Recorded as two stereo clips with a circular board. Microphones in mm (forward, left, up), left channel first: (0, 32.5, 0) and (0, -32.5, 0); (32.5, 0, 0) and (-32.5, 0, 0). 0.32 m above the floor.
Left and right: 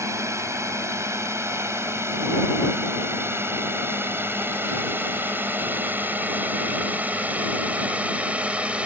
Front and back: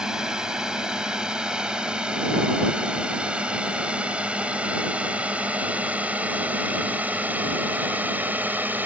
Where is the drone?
105° right; by 8.9 s 145° right.